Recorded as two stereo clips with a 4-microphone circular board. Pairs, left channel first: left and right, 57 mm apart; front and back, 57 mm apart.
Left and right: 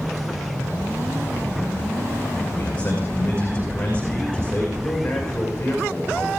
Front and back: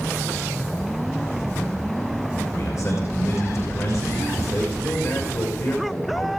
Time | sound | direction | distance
2.5 | a man speaking | 25° left | 5 m
4.8 | a man speaking | 20° left | 6.5 m